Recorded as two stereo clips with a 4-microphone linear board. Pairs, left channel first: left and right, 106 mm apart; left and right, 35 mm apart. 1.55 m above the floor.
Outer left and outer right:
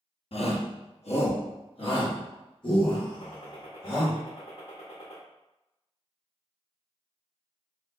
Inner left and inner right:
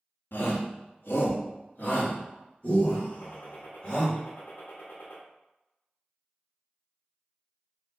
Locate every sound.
0.3 s a shout: 65° left (ahead or behind), 0.8 m; by 4.1 s 40° left (ahead or behind), 2.5 m
3.1 s a gunshot: 75° left (ahead or behind), 1.0 m